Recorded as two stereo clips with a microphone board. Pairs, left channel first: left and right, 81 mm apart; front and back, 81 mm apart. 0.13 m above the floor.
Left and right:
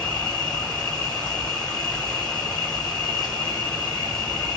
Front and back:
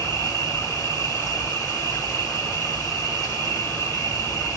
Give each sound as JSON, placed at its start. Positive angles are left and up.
{"t": 0.0, "sound": "an insect", "azimuth_deg": 10, "distance_m": 1.8}